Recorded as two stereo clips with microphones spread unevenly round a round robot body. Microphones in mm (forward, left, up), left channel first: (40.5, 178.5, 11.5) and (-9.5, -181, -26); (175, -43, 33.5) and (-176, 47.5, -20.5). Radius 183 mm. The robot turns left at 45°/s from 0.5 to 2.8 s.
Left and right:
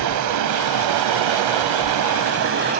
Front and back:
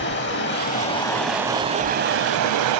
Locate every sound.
0.0 s running water: 60° right, 1.0 m; by 2.8 s 165° right, 1.0 m